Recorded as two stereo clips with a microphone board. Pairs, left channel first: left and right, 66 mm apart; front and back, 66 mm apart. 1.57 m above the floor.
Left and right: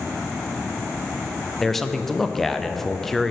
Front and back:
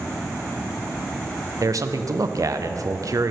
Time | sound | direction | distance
1.6 | a man speaking | 175° left | 0.5 m